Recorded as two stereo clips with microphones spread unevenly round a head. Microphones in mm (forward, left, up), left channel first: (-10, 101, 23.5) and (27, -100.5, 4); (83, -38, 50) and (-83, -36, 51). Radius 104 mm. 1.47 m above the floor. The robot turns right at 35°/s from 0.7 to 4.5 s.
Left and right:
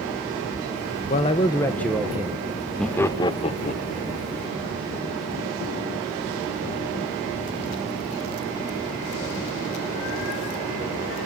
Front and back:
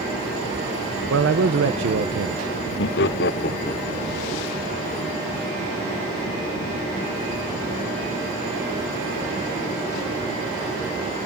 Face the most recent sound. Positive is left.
turn(degrees=70)